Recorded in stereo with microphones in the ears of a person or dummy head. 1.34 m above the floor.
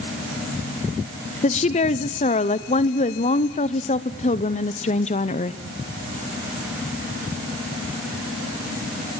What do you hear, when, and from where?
1.4 s a woman speaking: 30° left (ahead or behind), 0.6 m